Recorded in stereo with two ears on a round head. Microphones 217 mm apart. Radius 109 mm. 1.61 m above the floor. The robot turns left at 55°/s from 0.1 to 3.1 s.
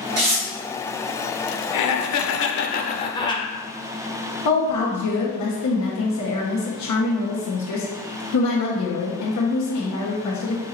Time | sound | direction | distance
0.2 | tearing paper | 65° right (ahead or behind) | 2.5 m
1.7 | laughter | 95° left | 1.0 m
4.5 | a woman speaking | 75° left (ahead or behind) | 1.4 m